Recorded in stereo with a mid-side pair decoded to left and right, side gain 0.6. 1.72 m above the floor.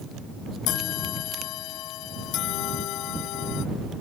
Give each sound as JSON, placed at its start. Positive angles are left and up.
{"t": 0.7, "sound": "a bell", "azimuth_deg": 65}